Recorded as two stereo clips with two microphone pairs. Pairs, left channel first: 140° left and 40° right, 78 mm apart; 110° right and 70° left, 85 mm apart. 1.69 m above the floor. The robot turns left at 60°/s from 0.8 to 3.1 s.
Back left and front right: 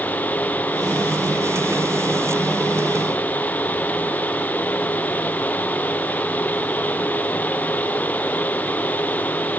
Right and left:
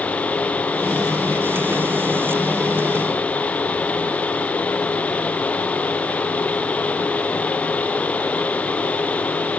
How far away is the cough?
No cough in this recording.